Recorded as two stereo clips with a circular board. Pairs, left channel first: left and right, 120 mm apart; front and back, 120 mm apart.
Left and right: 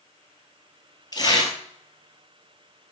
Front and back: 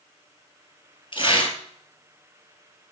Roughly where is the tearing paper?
Ahead left.